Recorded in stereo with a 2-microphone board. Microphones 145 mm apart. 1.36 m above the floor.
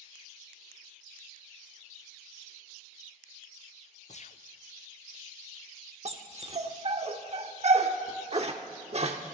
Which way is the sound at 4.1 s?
50° left (ahead or behind).